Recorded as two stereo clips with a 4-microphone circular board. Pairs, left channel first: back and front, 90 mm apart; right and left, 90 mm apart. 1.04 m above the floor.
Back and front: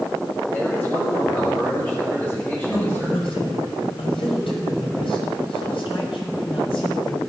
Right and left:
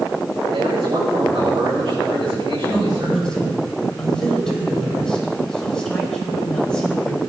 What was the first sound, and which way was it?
A man speaking, 110° left.